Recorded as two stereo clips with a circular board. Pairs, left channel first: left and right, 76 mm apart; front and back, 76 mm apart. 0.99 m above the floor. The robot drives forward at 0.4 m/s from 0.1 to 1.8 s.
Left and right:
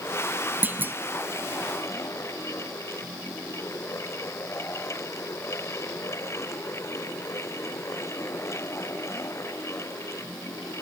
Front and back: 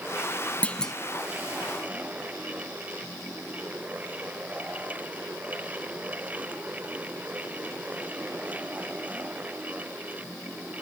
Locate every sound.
0.6 s a clunk: 55° right, 0.5 m; by 0.9 s 75° right, 0.5 m